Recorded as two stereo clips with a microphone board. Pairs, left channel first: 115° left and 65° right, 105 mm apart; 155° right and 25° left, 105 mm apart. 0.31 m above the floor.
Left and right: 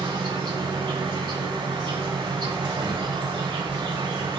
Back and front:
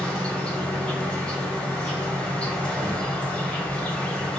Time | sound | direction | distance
0.0 | an insect | 80° right | 1.2 m